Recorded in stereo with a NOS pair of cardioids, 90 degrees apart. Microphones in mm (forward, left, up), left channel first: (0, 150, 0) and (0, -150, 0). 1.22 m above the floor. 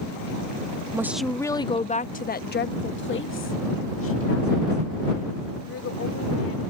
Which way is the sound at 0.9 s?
10° right.